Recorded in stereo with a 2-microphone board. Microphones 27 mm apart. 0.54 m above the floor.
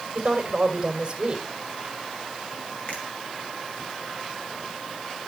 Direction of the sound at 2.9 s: 50° left (ahead or behind).